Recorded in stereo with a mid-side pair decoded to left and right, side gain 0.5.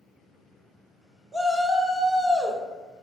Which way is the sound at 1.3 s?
20° right.